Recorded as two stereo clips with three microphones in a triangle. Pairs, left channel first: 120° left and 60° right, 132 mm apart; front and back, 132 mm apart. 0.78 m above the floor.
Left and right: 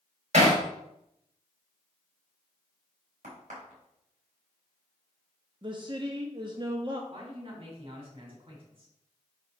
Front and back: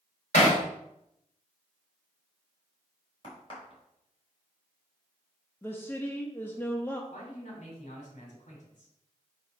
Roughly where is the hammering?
Ahead right.